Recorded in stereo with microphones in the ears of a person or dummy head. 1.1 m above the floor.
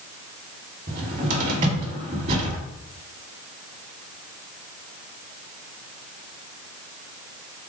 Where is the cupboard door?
35° right (ahead or behind), 1.3 m.